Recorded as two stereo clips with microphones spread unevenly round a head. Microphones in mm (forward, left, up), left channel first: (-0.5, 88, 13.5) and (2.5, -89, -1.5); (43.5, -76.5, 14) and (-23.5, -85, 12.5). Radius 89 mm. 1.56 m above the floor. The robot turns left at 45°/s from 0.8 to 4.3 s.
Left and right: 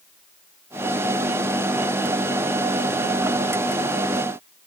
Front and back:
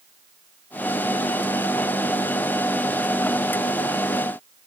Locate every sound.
Only background noise.